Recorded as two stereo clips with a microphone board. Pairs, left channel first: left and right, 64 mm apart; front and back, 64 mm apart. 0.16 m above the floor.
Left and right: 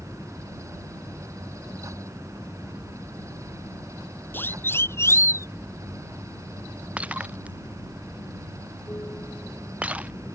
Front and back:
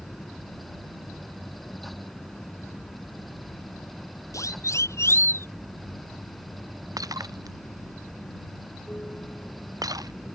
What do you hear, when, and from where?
0.0 s an aircraft: 55° left
4.3 s a siren: 30° left; by 5.5 s 50° left
7.0 s breaking glass: 160° right